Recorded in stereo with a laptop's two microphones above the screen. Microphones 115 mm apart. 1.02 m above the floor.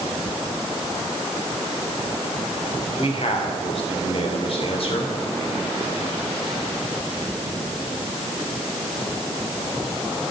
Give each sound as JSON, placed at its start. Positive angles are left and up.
{"t": 3.0, "sound": "a man speaking", "side_deg": 55, "distance_m": 3.5}